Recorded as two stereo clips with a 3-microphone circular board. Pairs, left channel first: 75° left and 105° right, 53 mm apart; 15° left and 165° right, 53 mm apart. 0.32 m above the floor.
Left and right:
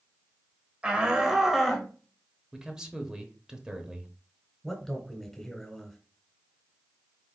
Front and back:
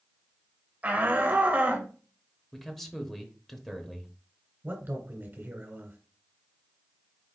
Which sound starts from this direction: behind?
A man speaking, at 4.6 s.